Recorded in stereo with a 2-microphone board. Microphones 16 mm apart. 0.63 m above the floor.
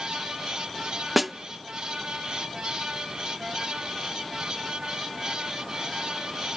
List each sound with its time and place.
1.2 s a snare drum: centre (ahead or behind), 0.6 m